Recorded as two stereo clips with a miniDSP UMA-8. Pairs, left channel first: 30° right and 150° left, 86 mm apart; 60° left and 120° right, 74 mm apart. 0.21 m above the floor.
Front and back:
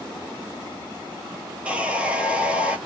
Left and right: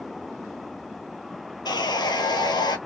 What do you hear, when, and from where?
1.6 s sawing: 75° left, 0.8 m